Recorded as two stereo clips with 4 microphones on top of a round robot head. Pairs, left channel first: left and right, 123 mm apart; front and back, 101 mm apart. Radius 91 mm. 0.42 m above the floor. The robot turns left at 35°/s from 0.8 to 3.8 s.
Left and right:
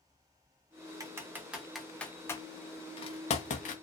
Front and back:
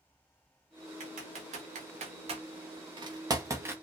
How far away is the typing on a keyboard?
About 0.8 m.